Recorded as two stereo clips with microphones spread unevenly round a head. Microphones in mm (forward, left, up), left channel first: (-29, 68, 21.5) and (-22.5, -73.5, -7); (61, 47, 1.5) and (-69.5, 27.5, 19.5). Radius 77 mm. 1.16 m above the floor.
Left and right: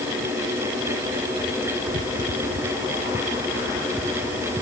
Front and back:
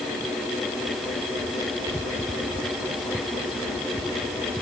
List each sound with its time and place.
Only background noise.